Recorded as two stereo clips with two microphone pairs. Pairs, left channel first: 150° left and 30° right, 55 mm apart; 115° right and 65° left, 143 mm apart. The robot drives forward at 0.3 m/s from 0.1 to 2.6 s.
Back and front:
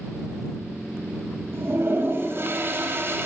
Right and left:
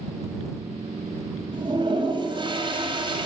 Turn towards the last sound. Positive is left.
turn(degrees=10)